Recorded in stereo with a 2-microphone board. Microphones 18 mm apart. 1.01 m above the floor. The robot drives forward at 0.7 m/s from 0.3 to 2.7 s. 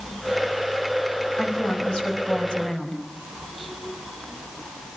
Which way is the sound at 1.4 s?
80° left.